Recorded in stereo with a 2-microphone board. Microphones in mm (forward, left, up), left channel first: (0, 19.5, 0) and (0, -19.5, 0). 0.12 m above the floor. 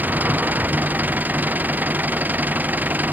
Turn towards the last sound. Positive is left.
turn(degrees=-50)  # may be behind; listen again after turning